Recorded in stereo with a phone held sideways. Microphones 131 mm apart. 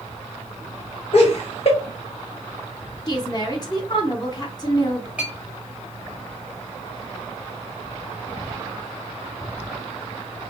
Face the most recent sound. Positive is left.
turn(degrees=-10)  # may be behind; listen again after turning